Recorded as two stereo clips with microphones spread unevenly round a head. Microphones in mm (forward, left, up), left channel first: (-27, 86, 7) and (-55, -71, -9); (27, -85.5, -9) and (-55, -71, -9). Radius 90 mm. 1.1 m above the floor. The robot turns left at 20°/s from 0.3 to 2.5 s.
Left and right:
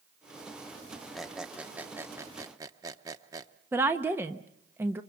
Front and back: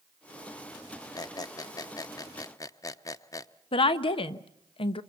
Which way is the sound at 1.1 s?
5° right.